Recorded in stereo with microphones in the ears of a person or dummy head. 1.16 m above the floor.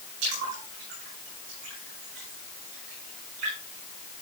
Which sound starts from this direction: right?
A splash, at 0.2 s.